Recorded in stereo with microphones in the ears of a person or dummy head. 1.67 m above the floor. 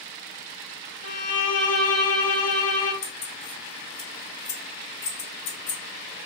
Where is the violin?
50° left (ahead or behind), 1.6 m.